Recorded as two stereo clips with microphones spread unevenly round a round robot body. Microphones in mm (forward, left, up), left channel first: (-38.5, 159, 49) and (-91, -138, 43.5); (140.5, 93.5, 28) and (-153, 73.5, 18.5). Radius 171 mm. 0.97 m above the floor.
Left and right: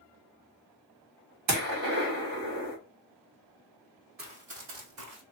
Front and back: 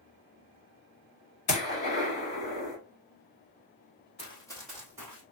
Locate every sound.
1.5 s a gunshot: 55° right, 1.4 m
4.2 s running footsteps: 50° right, 1.1 m; by 5.2 s 105° right, 1.3 m